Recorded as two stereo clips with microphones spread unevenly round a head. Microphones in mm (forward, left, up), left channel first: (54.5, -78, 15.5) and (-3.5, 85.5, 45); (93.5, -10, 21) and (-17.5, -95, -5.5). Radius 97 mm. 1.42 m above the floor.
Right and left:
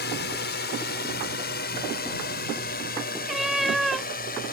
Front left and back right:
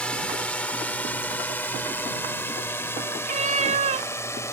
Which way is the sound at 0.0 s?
45° right.